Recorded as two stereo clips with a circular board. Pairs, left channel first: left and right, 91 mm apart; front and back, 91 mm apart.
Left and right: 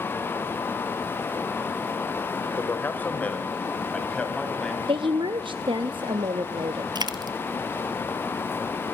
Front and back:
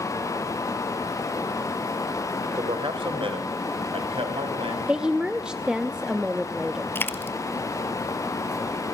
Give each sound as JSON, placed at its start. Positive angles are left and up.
{"t": 2.6, "sound": "a man speaking", "azimuth_deg": 155, "distance_m": 3.0}
{"t": 4.9, "sound": "a woman speaking", "azimuth_deg": -100, "distance_m": 0.8}
{"t": 7.0, "sound": "a dropped coin", "azimuth_deg": -65, "distance_m": 1.2}